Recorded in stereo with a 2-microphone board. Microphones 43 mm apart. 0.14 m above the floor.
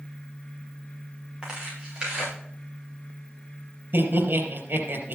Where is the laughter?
60° right (ahead or behind), 3.5 m.